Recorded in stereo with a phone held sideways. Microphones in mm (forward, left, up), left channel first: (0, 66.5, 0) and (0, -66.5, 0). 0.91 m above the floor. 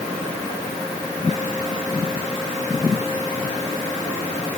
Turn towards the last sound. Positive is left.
No sound to turn to.